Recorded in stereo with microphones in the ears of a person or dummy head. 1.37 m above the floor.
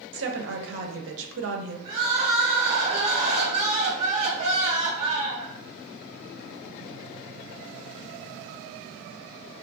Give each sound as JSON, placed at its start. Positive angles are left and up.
{"t": 0.1, "sound": "a woman speaking", "side_deg": -65, "distance_m": 0.5}
{"t": 1.9, "sound": "crying", "side_deg": -35, "distance_m": 1.0}